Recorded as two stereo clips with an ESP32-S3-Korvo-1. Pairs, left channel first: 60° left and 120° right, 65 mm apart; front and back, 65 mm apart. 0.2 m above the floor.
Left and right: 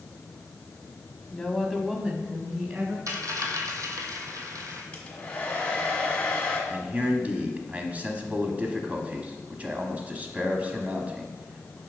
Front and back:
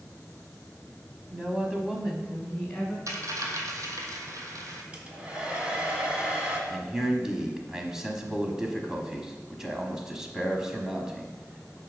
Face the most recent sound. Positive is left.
turn(degrees=-115)